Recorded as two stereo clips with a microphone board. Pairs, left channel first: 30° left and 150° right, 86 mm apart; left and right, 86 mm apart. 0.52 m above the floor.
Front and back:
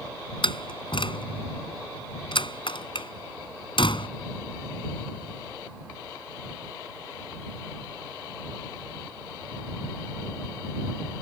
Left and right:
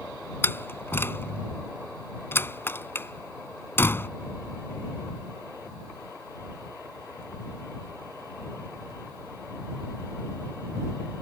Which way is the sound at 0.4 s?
25° left.